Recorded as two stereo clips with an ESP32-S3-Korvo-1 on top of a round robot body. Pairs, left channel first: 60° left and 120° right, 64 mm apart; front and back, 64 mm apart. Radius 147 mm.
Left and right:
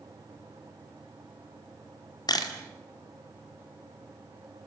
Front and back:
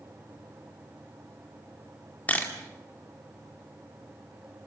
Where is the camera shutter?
70° left, 2.5 m.